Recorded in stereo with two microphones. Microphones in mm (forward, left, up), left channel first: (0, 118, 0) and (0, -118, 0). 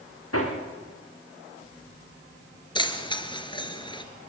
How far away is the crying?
I don't hear crying.